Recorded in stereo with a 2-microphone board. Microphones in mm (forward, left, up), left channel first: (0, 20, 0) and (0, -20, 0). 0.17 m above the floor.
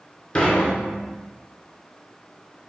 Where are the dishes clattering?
35° left (ahead or behind), 1.5 m.